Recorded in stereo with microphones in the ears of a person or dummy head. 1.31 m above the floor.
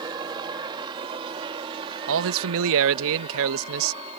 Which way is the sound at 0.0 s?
20° right (ahead or behind).